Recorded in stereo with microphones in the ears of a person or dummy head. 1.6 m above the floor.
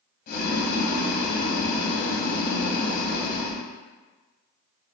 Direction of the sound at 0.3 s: 45° left (ahead or behind).